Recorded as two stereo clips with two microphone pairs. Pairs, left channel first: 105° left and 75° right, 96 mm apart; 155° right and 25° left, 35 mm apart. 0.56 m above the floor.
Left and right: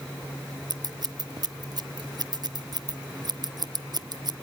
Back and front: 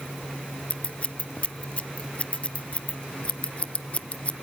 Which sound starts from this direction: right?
Scissors, at 0.7 s.